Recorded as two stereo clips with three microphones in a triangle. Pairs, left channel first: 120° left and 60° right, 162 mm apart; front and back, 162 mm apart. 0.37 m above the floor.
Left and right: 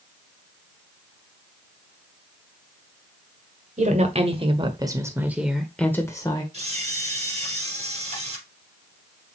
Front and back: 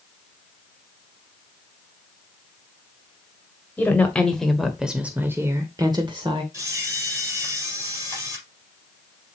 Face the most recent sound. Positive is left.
turn(degrees=-110)